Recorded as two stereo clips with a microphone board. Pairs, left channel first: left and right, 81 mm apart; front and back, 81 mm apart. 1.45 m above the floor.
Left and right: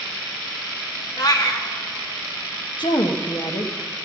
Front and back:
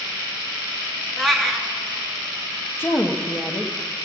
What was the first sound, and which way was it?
A cat meowing, 85° left.